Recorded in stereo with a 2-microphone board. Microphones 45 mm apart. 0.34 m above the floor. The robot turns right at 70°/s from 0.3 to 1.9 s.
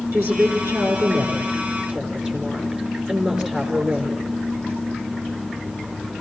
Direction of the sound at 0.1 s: 120° right.